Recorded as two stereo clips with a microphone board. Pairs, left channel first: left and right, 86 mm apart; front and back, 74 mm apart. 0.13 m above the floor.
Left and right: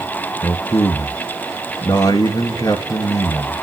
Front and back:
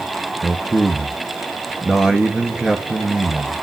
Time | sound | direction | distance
0.4 | a man speaking | 100° left | 1.8 m